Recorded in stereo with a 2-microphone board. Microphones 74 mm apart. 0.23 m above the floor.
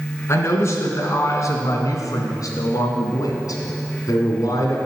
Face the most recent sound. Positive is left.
turn(degrees=55)  # may be behind; listen again after turning